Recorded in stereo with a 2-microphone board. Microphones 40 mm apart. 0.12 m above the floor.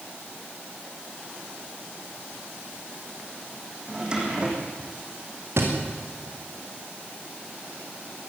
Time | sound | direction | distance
3.9 | a drawer | 20° right (ahead or behind) | 4.5 m
5.6 | a thud | 80° right | 7 m